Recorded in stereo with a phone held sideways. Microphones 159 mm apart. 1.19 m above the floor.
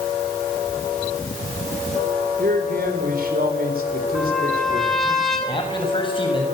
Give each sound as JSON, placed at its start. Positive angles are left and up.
{"t": 2.4, "sound": "a man speaking", "side_deg": -70, "distance_m": 4.0}
{"t": 4.2, "sound": "a trumpet", "side_deg": 0, "distance_m": 6.0}
{"t": 5.5, "sound": "a man speaking", "side_deg": 35, "distance_m": 7.5}